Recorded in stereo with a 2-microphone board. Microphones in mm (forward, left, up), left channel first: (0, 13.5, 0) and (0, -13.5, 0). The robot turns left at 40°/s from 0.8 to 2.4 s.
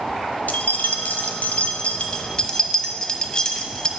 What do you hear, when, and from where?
0.5 s keys jangling: 80° left, 0.6 m; by 3.9 s 30° left (ahead or behind), 0.6 m